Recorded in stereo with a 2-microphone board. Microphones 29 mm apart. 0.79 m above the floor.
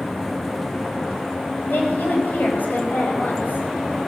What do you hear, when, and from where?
1.7 s a woman speaking: 80° left, 5 m